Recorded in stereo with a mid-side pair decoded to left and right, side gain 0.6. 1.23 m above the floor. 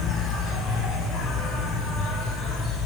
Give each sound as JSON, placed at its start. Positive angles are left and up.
{"t": 0.0, "sound": "an insect", "azimuth_deg": 50, "distance_m": 6.5}